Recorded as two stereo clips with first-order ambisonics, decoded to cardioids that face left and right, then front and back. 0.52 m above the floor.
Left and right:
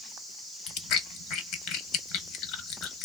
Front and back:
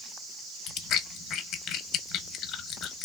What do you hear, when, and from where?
0.7 s chewing: 50° left, 0.6 m